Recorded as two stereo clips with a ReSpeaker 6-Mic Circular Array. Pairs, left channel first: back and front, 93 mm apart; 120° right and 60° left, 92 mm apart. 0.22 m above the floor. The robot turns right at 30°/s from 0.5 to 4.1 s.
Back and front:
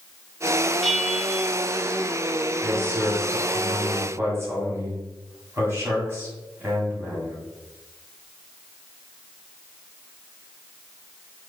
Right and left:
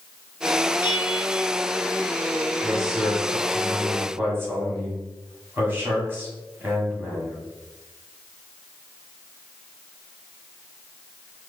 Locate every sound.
0.8 s a bell: 90° right, 0.9 m; by 1.5 s 70° right, 0.9 m
2.6 s a man speaking: 25° right, 1.5 m; by 7.4 s 20° left, 1.5 m